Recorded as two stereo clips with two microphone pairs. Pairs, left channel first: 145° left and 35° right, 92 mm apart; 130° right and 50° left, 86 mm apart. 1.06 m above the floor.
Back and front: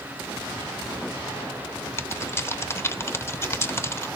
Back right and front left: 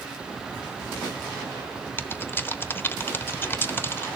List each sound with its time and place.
2.0 s typing on a keyboard: 175° right, 0.9 m